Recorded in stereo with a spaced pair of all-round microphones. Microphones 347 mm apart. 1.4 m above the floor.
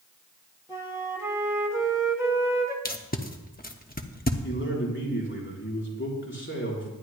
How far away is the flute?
About 1.5 m.